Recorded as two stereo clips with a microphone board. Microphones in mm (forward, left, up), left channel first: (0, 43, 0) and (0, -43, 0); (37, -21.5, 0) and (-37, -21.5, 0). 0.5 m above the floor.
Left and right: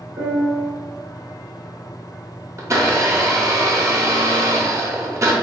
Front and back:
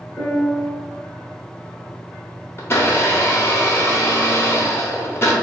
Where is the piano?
70° right, 1.7 m.